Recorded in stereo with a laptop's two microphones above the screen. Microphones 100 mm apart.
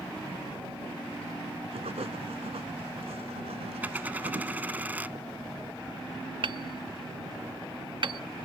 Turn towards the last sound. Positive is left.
turn(degrees=-55)  # may be behind; listen again after turning